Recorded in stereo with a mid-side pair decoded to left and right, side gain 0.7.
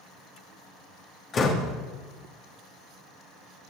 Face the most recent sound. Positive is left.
turn(degrees=40)